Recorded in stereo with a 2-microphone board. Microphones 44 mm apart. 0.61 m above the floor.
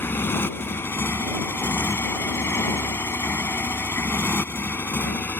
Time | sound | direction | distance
0.0 | a motorcycle | 60° left (ahead or behind) | ?